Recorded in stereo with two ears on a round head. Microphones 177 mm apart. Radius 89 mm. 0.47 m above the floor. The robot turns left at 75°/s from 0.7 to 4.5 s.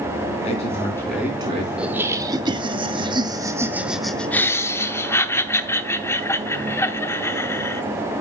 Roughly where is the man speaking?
Ahead left.